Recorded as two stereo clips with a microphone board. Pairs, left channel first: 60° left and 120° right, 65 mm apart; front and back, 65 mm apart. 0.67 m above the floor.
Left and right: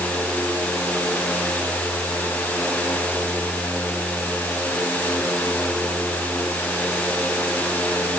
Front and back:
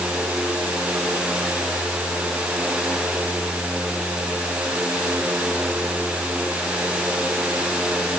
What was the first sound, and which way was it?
Only background noise.